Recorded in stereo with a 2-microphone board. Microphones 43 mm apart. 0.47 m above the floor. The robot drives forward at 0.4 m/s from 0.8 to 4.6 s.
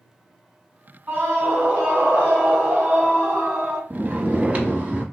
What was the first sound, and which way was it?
A scream, 35° right (ahead or behind).